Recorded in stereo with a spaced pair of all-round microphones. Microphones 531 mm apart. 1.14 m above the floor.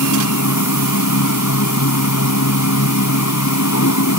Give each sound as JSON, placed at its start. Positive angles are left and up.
{"t": 0.0, "sound": "a machine running", "side_deg": 30}